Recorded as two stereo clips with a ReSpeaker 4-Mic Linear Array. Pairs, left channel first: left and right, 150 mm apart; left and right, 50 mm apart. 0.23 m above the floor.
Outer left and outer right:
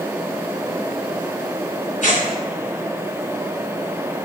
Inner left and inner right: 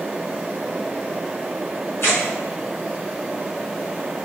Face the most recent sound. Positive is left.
turn(degrees=60)  # may be behind; listen again after turning